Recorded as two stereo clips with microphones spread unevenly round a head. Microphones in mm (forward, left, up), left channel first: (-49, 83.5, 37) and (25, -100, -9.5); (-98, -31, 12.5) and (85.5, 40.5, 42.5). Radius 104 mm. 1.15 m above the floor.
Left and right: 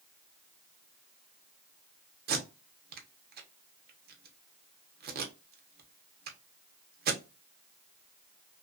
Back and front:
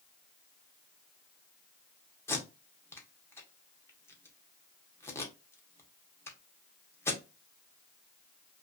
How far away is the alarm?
No alarm in this recording.